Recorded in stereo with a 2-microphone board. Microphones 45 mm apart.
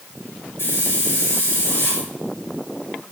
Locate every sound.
0.6 s a hiss: 60° left (ahead or behind), 4 m